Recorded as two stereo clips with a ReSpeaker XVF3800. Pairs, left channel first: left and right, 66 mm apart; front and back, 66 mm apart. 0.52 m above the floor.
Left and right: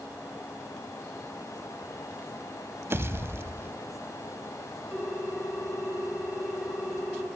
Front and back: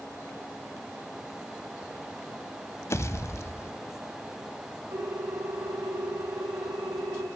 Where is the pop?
40° right, 0.7 m.